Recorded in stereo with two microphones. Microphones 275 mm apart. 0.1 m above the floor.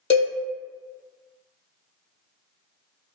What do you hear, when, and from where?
0.1 s a cowbell: 45° left (ahead or behind), 0.8 m